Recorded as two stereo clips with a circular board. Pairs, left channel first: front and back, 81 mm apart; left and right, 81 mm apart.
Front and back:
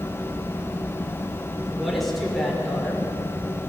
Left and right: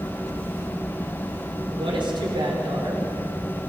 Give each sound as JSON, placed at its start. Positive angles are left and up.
{"t": 1.7, "sound": "a woman speaking", "azimuth_deg": -90, "distance_m": 5.0}